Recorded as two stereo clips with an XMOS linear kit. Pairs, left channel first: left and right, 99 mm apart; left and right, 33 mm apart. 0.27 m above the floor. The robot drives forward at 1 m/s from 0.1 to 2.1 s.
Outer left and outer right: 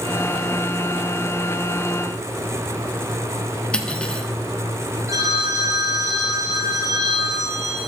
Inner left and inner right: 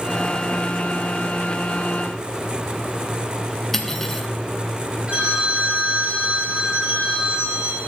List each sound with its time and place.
3.7 s cutlery clinking: 10° left (ahead or behind), 1.6 m
5.1 s a phone ringing: 35° right (ahead or behind), 5.5 m